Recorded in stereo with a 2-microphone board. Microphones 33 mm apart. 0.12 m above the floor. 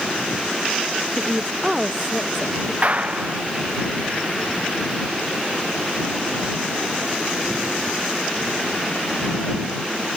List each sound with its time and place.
1.2 s a woman speaking: 15° right (ahead or behind)
2.8 s a clap: 40° right (ahead or behind)